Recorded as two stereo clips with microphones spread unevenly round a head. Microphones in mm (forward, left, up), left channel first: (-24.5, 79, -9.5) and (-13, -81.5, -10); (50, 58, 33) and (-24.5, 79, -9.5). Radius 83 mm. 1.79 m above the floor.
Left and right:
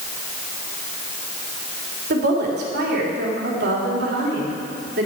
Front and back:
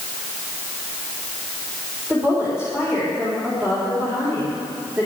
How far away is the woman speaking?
About 3.5 m.